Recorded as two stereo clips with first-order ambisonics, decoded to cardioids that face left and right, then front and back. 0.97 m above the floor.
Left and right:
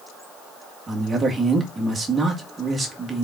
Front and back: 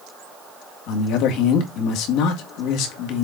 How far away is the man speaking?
About 1.8 m.